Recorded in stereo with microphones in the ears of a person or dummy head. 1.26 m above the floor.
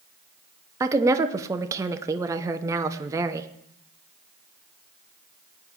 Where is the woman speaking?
15° right (ahead or behind), 0.7 m.